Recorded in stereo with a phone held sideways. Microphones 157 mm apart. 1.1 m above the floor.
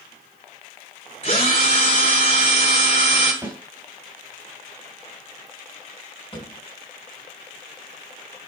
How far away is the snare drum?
About 3.5 m.